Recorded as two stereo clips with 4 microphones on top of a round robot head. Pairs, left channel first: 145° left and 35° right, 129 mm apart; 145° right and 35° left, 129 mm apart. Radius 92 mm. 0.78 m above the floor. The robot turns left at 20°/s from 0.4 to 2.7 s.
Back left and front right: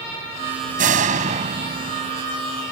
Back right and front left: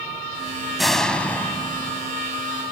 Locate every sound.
0.8 s a door slam: 55° right; by 2.1 s 80° right